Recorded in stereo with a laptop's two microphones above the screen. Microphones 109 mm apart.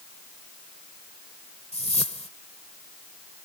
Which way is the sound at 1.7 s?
85° left.